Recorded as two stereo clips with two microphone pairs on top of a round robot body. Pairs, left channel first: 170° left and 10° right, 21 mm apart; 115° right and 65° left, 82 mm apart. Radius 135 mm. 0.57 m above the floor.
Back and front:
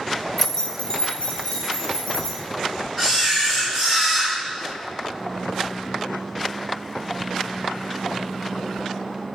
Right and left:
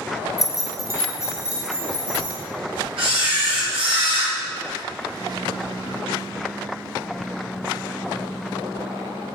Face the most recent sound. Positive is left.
turn(degrees=80)